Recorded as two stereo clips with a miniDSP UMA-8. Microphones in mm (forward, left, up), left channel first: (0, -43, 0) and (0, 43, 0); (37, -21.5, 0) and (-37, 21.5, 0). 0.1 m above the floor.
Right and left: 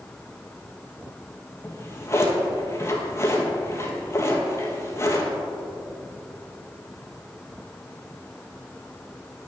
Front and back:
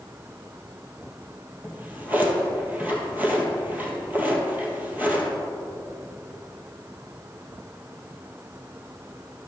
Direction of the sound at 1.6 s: 145° right.